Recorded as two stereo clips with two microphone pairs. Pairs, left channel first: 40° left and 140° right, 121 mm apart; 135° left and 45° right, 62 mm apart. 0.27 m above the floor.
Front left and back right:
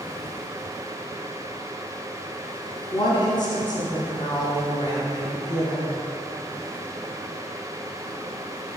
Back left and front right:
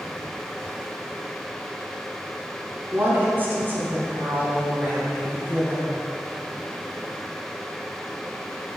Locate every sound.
2.9 s a woman speaking: 5° left, 2.5 m